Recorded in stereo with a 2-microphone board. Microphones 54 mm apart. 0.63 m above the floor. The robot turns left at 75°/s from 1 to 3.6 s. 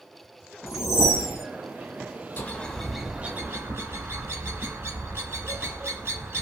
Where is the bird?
35° left, 0.6 m; by 6.4 s 55° right, 0.6 m.